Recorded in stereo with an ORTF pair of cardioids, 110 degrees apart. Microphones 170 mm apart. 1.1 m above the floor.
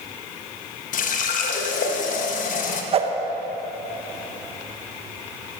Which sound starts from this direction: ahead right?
A whoosh, at 2.9 s.